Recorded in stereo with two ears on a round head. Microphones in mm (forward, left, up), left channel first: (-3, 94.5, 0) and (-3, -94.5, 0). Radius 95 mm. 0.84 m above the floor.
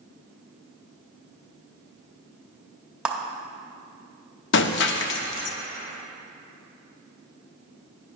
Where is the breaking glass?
55° left (ahead or behind), 0.5 m.